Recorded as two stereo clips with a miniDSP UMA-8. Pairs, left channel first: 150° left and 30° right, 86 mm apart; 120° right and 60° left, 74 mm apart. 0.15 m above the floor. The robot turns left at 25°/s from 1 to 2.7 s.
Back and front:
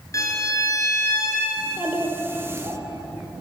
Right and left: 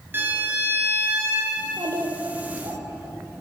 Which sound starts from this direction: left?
A violin, at 0.1 s.